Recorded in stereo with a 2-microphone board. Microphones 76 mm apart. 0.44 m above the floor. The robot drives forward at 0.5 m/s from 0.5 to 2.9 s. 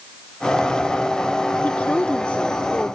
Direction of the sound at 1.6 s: 20° left (ahead or behind).